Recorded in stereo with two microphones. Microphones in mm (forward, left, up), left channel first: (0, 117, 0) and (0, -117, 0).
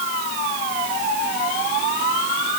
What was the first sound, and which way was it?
Only background noise.